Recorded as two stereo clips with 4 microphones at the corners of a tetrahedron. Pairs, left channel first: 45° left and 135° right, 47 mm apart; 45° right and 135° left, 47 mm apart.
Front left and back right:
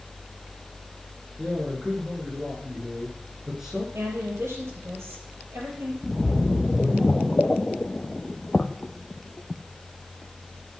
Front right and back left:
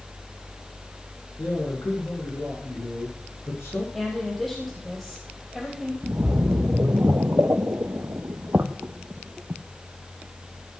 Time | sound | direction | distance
1.4 | a man speaking | 60° right | 6.5 m
3.9 | a woman speaking | 130° right | 4.5 m
6.0 | a splash | 110° left | 0.7 m